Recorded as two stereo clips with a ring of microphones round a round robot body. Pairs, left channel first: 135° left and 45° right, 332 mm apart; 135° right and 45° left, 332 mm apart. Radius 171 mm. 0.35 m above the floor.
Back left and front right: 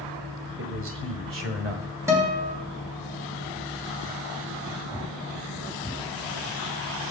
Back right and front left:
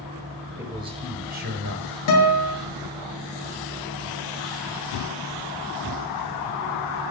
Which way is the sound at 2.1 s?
125° right.